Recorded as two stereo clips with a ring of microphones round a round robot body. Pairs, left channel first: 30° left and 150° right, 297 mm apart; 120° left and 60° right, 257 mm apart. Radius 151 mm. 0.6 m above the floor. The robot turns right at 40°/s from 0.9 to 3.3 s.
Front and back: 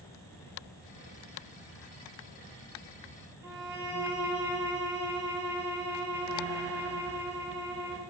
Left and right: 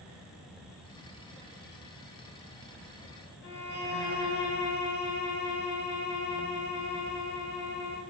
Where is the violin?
125° left, 0.8 m.